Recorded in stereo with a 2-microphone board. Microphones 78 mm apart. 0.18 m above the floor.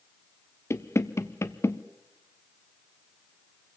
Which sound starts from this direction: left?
Knocking, at 0.7 s.